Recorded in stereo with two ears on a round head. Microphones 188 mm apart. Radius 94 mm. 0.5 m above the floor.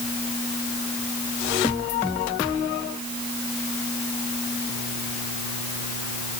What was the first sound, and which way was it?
Only background noise.